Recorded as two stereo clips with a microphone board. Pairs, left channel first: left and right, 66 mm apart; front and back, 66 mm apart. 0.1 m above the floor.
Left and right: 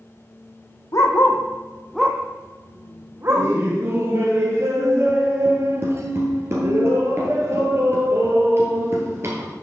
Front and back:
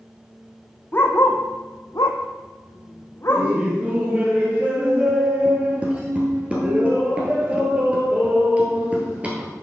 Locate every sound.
0.9 s a dog barking: 55° left, 1.2 m; by 3.5 s 45° right, 1.9 m
3.3 s laughter: 115° right, 1.7 m